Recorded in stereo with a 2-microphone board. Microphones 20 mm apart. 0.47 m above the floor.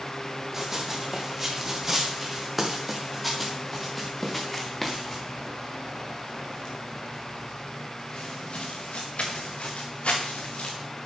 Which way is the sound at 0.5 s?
15° right (ahead or behind).